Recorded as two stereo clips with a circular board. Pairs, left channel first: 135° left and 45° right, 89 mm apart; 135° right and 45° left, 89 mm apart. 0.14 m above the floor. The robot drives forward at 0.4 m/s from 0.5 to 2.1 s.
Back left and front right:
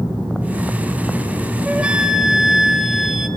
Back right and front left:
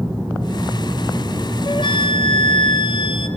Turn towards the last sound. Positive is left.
turn(degrees=-130)